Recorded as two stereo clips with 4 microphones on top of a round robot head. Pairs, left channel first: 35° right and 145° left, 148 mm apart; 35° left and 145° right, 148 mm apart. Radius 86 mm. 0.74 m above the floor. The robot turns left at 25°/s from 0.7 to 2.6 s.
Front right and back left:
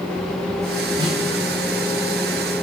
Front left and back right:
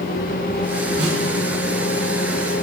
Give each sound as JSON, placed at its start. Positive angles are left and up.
{"t": 1.0, "sound": "a snare drum", "azimuth_deg": -150, "distance_m": 3.0}